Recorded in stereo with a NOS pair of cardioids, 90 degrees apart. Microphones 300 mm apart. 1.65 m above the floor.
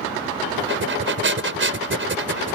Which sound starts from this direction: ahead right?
Breathing, at 0.6 s.